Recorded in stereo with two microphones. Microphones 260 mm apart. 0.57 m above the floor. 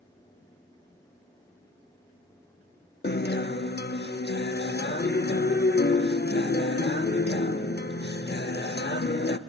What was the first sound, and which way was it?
A guitar, 40° left (ahead or behind).